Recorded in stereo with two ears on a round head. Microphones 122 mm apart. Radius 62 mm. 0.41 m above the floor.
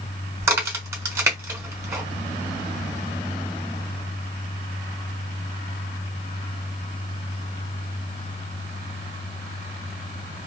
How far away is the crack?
About 1.1 m.